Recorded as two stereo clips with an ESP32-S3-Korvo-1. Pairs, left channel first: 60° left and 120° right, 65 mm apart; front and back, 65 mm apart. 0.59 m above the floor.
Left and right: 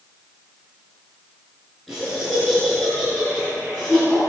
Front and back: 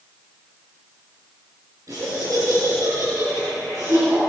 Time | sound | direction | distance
1.9 | laughter | 145° left | 9.5 m